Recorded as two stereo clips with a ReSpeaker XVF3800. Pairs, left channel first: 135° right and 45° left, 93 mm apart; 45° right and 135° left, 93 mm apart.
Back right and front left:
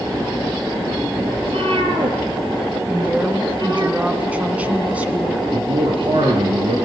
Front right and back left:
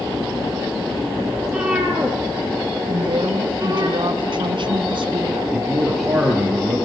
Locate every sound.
1.4 s a cat meowing: 50° left, 4 m; by 3.9 s 85° left, 3.5 m
2.9 s a woman speaking: 120° left, 2 m
5.5 s a man speaking: 50° left, 5 m